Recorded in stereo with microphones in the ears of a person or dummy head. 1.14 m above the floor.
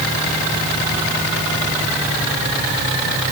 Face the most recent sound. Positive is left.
No sound to turn to.